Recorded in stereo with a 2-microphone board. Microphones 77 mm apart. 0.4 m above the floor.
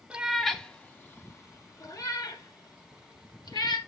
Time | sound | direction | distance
0.1 | a cat meowing | 15° right (ahead or behind) | 0.8 m